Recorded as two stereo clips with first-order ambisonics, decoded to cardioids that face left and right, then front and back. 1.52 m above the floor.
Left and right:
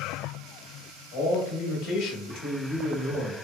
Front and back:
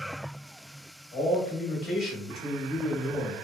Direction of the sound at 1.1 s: 60° left.